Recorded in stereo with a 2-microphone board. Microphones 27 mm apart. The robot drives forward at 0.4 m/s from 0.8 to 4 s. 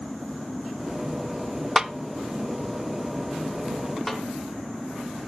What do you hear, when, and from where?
1.8 s a snare drum: 15° right (ahead or behind), 0.6 m
4.1 s a snare drum: 5° left (ahead or behind), 2.5 m